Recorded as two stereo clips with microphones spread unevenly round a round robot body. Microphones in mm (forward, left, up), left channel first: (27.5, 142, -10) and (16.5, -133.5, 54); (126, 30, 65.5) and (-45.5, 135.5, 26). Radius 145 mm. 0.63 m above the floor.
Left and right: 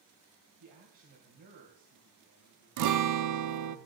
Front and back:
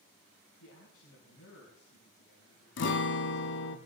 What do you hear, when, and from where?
0.6 s a man speaking: 65° right, 3.5 m
2.8 s a guitar: 70° right, 0.9 m